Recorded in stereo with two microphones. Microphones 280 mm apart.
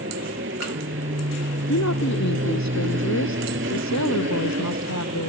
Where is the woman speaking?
75° left (ahead or behind).